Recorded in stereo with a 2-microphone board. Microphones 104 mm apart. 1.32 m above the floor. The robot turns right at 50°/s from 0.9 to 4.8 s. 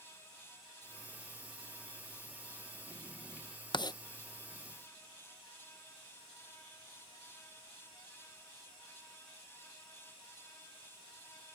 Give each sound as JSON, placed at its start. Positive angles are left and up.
{"t": 3.7, "sound": "writing", "side_deg": 45}